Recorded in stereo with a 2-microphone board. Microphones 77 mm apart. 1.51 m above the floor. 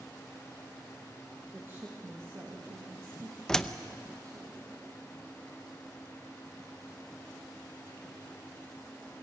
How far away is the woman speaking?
About 1.8 m.